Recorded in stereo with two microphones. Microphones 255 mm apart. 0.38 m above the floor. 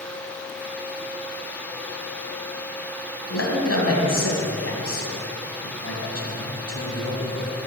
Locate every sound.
3.3 s a man speaking: 70° left (ahead or behind), 2.5 m